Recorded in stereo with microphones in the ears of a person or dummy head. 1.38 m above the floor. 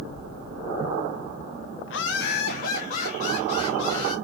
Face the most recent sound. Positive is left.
turn(degrees=30)  # may be behind; listen again after turning